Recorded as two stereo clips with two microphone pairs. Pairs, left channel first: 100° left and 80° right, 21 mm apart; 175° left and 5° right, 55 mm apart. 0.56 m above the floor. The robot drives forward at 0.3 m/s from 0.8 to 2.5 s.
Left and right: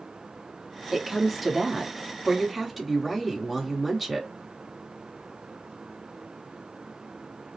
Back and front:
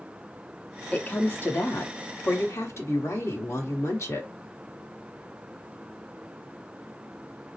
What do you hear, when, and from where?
0.9 s a woman speaking: 155° right, 0.6 m; by 4.3 s 170° right, 1.0 m